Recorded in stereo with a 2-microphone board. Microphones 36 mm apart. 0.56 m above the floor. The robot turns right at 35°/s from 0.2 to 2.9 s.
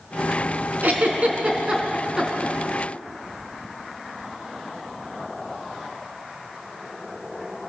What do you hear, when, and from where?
0.8 s a giggle: 60° right (ahead or behind), 3.5 m; by 2.5 s centre (ahead or behind), 3.5 m